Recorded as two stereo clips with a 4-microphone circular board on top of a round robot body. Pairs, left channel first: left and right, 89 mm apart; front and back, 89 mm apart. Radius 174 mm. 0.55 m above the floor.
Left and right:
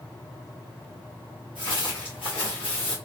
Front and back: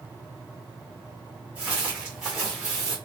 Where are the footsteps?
110° left, 0.7 m; by 3.0 s 90° left, 1.3 m.